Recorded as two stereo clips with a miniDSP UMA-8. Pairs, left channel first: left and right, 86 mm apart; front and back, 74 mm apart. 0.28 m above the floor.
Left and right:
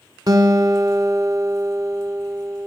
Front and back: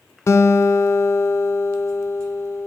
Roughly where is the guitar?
Ahead right.